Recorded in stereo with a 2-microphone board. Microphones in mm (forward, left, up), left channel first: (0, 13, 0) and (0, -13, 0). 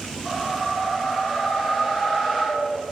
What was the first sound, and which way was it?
A whoosh, 30° left (ahead or behind).